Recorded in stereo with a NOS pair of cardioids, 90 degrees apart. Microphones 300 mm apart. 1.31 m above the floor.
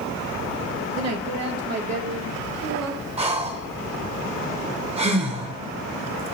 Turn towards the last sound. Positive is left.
turn(degrees=-20)